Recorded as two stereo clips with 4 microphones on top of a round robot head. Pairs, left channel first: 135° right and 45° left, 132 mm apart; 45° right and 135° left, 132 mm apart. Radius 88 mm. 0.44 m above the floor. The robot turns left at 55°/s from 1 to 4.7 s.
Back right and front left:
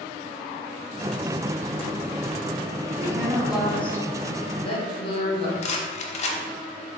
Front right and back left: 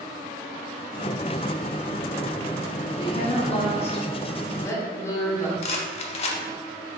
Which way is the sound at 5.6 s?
90° right.